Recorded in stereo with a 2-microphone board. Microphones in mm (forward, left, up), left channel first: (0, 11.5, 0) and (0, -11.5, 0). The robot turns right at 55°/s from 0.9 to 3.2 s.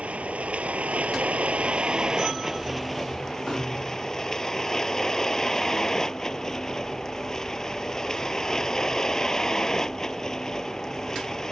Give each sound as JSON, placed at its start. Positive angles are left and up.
{"t": 0.0, "sound": "a vehicle", "azimuth_deg": -100}